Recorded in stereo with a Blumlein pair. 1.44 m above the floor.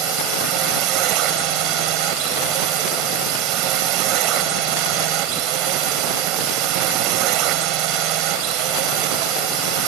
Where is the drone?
40° right.